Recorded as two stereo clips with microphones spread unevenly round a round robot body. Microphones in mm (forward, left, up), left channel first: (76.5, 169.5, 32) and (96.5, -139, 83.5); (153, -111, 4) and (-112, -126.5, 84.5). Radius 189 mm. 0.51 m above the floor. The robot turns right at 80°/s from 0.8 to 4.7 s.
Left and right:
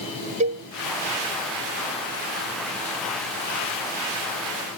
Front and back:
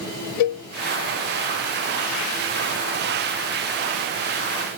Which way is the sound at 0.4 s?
25° right.